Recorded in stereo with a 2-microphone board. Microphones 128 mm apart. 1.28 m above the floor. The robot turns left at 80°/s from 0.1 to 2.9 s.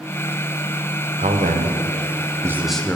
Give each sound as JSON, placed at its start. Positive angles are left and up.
{"t": 1.2, "sound": "a man speaking", "azimuth_deg": -55, "distance_m": 0.7}